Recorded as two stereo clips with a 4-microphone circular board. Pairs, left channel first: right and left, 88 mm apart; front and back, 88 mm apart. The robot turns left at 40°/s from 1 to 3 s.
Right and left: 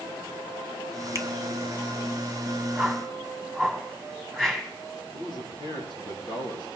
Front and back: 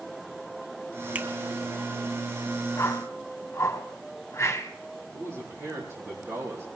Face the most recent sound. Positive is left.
turn(degrees=-125)